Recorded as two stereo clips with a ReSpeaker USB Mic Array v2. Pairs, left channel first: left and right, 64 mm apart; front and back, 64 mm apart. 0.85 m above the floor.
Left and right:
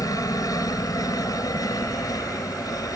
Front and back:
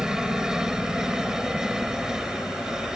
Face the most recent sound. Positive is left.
turn(degrees=100)